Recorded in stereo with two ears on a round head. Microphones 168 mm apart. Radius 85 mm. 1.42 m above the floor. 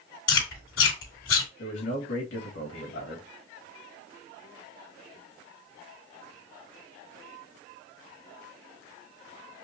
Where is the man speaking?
70° left (ahead or behind), 2.5 m.